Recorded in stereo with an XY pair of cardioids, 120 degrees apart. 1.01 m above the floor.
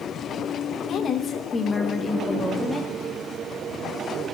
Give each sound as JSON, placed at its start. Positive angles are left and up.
{"t": 0.9, "sound": "a woman speaking", "azimuth_deg": 55, "distance_m": 1.1}